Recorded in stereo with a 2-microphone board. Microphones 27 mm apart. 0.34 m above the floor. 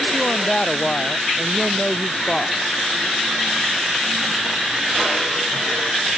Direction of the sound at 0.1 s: 20° left (ahead or behind).